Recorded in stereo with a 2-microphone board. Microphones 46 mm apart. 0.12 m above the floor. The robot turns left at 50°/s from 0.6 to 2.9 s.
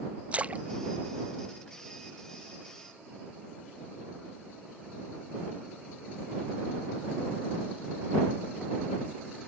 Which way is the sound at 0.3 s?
30° right (ahead or behind).